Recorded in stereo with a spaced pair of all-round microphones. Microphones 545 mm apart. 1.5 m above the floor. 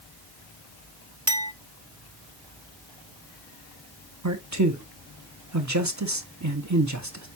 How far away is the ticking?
I don't hear ticking.